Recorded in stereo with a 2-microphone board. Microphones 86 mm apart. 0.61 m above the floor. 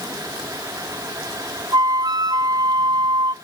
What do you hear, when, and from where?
1.7 s a flute: 50° right (ahead or behind), 0.6 m